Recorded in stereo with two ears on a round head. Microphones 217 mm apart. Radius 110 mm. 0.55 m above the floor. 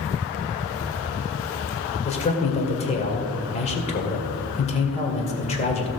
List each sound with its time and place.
2.0 s a man speaking: 30° left (ahead or behind), 2.0 m